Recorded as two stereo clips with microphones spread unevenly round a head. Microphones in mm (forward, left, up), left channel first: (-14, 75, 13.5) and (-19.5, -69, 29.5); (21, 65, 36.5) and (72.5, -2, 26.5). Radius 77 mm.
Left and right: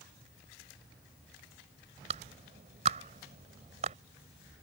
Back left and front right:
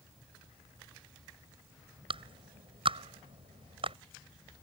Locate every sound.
2.1 s a clap: 40° right